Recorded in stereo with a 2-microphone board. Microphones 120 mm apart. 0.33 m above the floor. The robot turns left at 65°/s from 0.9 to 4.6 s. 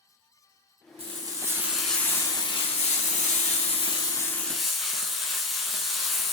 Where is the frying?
125° right, 0.8 m; by 6.3 s straight ahead, 0.8 m.